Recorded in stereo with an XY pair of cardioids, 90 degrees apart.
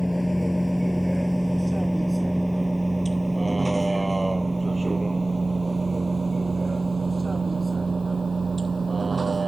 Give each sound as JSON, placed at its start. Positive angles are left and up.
{"t": 0.0, "sound": "a vehicle", "azimuth_deg": 5}